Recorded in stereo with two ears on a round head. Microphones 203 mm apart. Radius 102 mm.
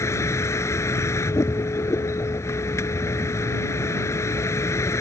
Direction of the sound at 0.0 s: 15° left (ahead or behind).